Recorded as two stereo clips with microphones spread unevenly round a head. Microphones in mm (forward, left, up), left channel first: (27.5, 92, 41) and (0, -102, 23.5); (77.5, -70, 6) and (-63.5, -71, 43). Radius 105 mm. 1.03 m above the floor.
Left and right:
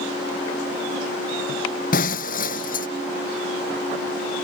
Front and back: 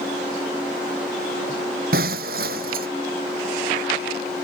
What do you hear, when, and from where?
1.9 s breaking glass: 135° left